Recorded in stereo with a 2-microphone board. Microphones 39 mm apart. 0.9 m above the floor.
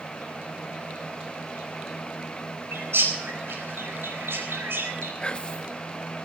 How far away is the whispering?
About 0.9 m.